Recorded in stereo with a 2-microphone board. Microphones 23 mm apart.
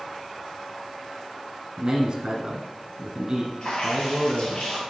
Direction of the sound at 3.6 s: 40° left (ahead or behind).